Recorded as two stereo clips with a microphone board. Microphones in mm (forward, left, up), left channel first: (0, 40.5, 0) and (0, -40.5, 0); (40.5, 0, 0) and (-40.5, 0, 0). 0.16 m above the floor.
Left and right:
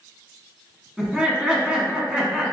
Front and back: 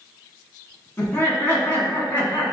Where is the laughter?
20° right, 1.6 m.